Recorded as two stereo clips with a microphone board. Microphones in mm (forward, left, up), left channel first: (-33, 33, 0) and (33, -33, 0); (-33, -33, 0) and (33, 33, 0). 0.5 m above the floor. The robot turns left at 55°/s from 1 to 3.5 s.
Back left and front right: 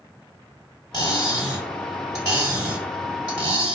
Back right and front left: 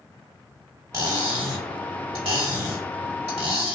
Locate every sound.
0.9 s cutlery clinking: 100° left, 1.5 m; by 3.8 s 40° right, 1.5 m